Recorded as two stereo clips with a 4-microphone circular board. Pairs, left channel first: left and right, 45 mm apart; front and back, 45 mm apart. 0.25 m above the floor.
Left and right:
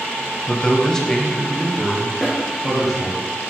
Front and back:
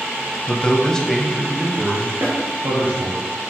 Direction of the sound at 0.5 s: 35° left.